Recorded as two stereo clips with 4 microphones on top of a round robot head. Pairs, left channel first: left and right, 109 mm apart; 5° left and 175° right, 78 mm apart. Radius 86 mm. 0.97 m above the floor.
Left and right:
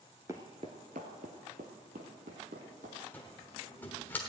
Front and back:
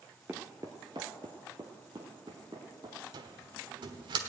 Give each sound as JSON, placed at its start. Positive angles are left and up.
{"t": 0.3, "sound": "footsteps", "azimuth_deg": -120, "distance_m": 0.9}
{"t": 3.1, "sound": "a cupboard door", "azimuth_deg": 165, "distance_m": 1.2}